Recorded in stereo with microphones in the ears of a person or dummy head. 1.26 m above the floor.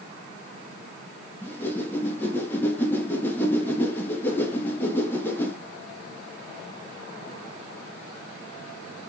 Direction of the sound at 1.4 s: 10° left (ahead or behind).